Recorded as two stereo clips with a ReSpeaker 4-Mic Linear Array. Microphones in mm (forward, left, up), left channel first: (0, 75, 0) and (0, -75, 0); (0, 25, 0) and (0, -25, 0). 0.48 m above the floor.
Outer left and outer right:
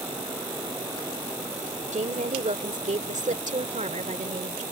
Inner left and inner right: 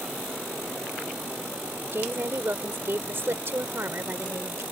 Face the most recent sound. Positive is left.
turn(degrees=-55)  # may be behind; listen again after turning